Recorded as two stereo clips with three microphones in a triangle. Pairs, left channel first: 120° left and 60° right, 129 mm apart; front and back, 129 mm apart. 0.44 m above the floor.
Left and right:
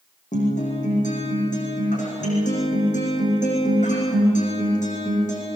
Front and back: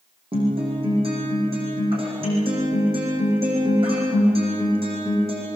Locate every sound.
0.3 s a guitar: 135° left, 9.5 m